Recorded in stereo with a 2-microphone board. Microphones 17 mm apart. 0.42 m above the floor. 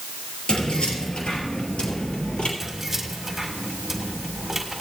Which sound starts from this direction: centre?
Keys jangling, at 2.6 s.